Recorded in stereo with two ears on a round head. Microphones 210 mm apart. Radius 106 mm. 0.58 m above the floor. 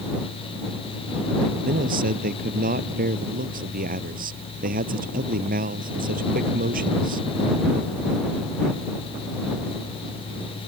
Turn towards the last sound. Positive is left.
turn(degrees=-40)  # may be behind; listen again after turning